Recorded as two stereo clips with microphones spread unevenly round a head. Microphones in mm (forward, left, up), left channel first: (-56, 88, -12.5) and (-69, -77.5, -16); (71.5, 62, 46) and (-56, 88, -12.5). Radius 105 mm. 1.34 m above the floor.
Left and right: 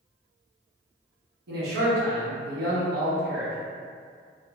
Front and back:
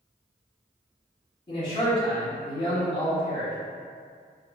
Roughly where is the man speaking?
Right.